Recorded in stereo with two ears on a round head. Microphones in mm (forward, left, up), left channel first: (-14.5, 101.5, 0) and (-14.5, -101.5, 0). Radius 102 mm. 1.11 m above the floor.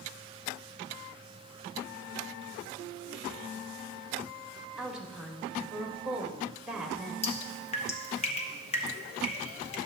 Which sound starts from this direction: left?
Dripping, at 7.2 s.